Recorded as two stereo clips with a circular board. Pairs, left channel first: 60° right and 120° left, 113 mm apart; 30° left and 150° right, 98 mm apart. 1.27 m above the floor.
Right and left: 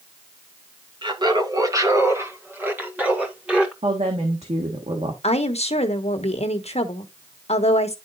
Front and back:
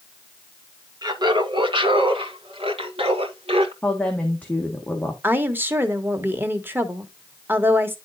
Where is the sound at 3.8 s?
105° left, 1.4 m.